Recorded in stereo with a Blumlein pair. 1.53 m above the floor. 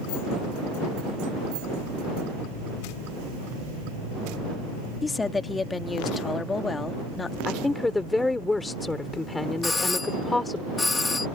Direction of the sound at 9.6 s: 10° left.